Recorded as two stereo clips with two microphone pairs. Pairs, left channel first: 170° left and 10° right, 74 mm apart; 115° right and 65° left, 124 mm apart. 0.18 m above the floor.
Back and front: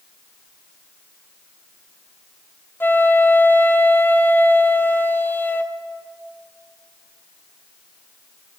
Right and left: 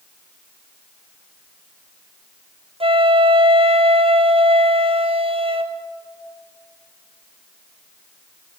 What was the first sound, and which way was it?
A flute, 110° left.